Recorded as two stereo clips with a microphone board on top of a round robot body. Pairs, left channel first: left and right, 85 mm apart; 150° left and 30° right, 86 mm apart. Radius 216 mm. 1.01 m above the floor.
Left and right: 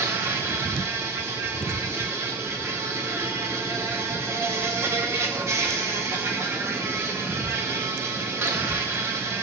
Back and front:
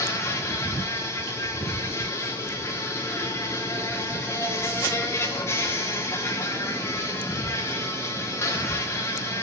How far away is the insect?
About 0.8 m.